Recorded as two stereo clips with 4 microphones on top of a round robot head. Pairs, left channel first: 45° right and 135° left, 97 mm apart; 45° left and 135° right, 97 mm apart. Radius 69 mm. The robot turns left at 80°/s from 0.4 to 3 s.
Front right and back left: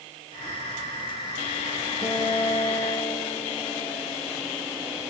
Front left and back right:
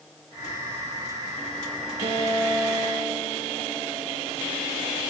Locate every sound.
2.0 s a guitar: 170° right, 4.5 m; by 4.1 s 110° left, 4.5 m